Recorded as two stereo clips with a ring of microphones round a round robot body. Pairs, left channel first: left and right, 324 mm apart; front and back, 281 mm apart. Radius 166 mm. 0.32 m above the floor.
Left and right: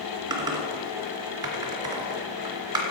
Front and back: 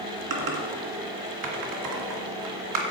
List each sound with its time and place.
0.3 s typing on a keyboard: 170° right, 2.5 m